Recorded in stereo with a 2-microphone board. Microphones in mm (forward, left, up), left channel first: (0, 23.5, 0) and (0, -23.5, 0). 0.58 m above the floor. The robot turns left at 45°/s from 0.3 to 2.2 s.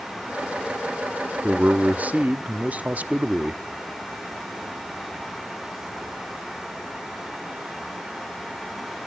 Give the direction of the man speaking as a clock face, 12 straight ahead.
2 o'clock.